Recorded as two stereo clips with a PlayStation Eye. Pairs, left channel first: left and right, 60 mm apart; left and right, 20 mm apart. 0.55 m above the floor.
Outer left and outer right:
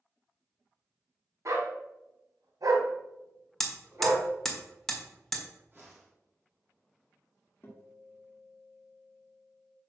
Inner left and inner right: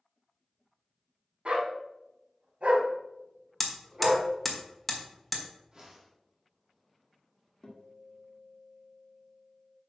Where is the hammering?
5° left (ahead or behind), 1.5 m.